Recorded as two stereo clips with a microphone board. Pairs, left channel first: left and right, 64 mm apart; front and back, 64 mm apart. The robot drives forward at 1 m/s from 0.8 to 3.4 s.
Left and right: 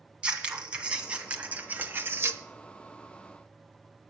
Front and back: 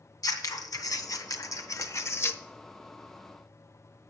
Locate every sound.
0.2 s scissors: 15° right, 2 m; by 2.4 s 55° right, 0.9 m